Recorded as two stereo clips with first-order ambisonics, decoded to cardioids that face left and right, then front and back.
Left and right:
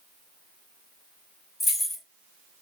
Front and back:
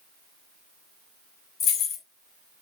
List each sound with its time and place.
1.6 s keys jangling: 15° left, 0.7 m